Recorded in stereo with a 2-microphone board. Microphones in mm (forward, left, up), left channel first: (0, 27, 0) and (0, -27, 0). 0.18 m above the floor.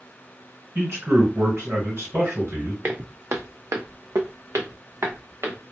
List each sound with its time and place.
0.8 s a man speaking: 45° right (ahead or behind), 2.5 m
2.8 s footsteps: 40° right (ahead or behind), 0.8 m; by 5.6 s 50° right (ahead or behind), 1.5 m